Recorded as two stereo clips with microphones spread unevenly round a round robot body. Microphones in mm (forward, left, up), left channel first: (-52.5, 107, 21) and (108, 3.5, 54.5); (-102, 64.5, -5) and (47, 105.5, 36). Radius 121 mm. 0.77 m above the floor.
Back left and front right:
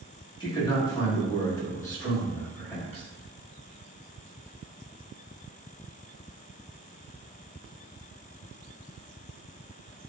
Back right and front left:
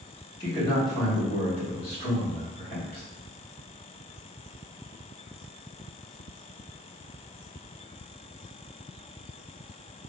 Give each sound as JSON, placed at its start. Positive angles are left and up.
{"t": 0.4, "sound": "a man speaking", "azimuth_deg": -175, "distance_m": 1.2}